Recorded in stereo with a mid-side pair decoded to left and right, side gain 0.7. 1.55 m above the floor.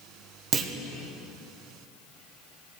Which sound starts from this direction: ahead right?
A clunk, at 0.5 s.